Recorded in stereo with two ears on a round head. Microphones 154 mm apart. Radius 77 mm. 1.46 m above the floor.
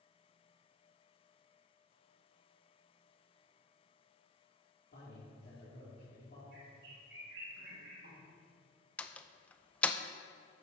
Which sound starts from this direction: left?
A man speaking, at 4.9 s.